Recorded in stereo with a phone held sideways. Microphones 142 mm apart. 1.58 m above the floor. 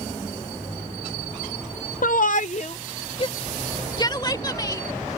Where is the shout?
70° left (ahead or behind); by 5.2 s 25° left (ahead or behind).